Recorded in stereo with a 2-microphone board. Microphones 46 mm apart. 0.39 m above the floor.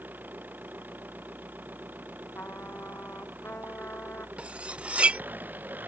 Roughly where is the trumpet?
Left.